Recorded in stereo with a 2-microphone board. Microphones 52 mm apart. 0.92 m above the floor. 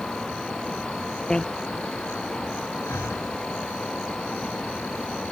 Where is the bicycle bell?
15° left (ahead or behind).